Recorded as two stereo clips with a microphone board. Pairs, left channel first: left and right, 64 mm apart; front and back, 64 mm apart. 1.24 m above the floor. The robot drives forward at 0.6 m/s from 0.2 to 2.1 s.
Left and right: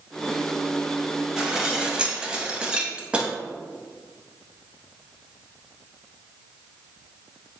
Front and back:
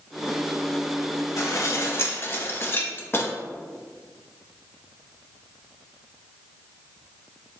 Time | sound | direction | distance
1.4 | dishes clattering | 10° right | 0.9 m